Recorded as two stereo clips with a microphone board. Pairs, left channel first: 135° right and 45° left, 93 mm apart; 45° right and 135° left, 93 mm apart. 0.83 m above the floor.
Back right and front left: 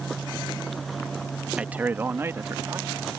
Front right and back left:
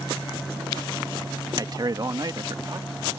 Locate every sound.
1.6 s a man speaking: 115° left; by 3.0 s 95° left